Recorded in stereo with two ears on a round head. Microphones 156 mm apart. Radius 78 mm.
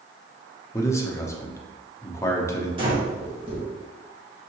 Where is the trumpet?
No trumpet in this recording.